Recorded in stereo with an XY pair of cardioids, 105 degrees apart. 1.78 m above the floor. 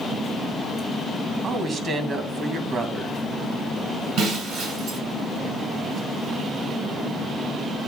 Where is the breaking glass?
65° right, 5 m.